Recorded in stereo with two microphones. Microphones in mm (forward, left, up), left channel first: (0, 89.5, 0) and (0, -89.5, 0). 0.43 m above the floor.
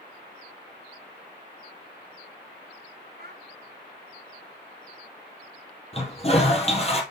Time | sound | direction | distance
3.2 | a child speaking | 60° right (ahead or behind) | 1.4 m
5.9 | a toilet flushing | 35° left (ahead or behind) | 1.9 m